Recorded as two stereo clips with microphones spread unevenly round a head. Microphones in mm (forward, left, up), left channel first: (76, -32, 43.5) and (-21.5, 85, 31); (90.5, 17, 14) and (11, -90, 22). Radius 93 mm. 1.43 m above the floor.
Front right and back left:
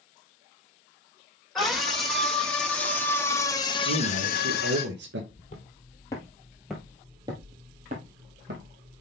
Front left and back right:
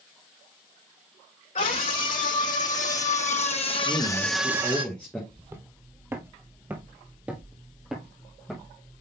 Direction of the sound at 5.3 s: 65° right.